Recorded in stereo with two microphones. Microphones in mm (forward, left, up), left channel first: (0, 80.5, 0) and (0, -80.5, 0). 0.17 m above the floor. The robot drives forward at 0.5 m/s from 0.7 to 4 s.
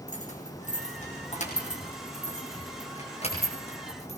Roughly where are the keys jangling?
Left.